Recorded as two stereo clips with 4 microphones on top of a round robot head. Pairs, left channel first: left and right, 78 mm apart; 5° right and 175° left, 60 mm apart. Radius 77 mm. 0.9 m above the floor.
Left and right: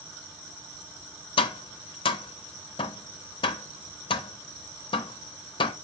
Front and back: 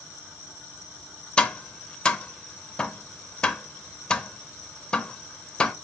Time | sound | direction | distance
1.4 | tapping | 70° left | 0.5 m